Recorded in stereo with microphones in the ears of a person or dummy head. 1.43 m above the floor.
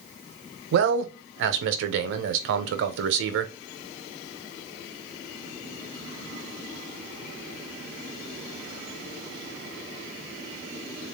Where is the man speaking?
65° right (ahead or behind), 0.6 m.